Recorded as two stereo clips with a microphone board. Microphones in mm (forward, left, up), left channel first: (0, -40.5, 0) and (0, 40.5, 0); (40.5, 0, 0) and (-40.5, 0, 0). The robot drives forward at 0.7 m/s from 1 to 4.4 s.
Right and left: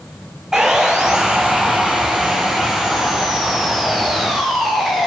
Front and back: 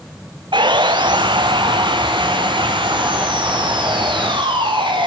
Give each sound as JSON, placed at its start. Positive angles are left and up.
{"t": 0.5, "sound": "sawing", "azimuth_deg": 175, "distance_m": 1.4}